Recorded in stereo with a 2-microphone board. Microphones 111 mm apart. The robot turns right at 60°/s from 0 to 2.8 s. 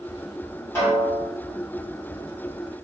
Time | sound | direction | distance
0.8 | a snare drum | 20° left (ahead or behind) | 1.6 m